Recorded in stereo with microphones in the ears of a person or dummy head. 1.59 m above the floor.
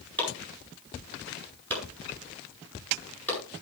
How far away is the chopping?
About 9.5 m.